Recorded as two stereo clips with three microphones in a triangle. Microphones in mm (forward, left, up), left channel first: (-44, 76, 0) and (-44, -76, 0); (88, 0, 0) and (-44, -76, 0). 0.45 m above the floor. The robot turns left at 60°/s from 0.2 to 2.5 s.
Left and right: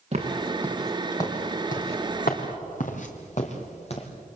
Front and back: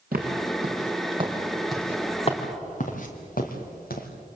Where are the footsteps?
135° right, 4.5 m; by 4.1 s 45° left, 3.5 m.